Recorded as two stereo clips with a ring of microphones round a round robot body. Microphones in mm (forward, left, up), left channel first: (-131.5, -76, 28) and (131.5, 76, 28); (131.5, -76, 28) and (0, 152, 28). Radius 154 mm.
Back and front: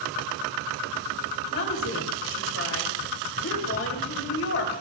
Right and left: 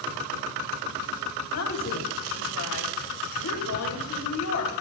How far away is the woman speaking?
About 3.5 m.